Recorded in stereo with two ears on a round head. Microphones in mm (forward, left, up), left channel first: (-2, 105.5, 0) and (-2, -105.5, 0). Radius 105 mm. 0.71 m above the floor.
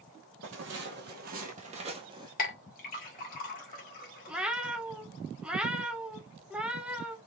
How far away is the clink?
About 1.6 m.